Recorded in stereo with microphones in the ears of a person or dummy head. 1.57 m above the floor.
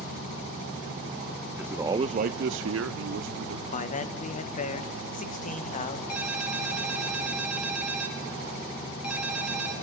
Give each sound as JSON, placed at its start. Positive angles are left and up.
{"t": 1.6, "sound": "a man speaking", "side_deg": -5, "distance_m": 0.8}
{"t": 3.7, "sound": "a man speaking", "side_deg": 40, "distance_m": 1.5}
{"t": 6.1, "sound": "a ringtone", "side_deg": -10, "distance_m": 3.5}